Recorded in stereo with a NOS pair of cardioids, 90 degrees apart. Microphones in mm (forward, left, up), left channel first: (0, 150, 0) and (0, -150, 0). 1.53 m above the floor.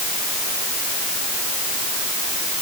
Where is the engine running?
I don't hear an engine running.